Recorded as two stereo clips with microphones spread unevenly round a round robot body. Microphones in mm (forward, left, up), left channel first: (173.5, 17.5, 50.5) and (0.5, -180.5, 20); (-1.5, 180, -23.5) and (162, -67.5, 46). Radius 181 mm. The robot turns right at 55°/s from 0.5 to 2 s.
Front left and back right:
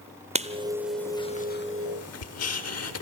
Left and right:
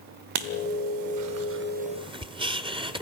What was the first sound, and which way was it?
Writing, 65° right.